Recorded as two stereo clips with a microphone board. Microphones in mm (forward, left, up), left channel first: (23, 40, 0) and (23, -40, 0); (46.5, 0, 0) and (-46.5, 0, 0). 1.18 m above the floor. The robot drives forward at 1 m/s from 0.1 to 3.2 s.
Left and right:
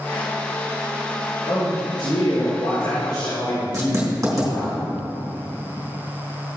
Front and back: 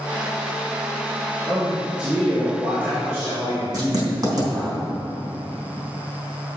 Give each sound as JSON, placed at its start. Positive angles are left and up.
{"t": 1.5, "sound": "a man speaking", "azimuth_deg": 90, "distance_m": 3.5}
{"t": 3.7, "sound": "writing", "azimuth_deg": -140, "distance_m": 3.0}